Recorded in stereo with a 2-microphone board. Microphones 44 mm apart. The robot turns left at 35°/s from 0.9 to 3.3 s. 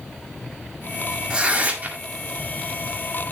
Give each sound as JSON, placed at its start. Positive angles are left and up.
{"t": 1.3, "sound": "tearing paper", "side_deg": -20, "distance_m": 1.7}